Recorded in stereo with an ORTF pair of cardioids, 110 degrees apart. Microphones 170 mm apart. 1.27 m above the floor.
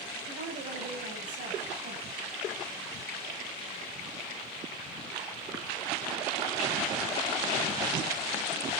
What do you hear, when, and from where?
0.3 s a woman speaking: 55° right, 8.5 m; by 2.1 s 50° right, 9.5 m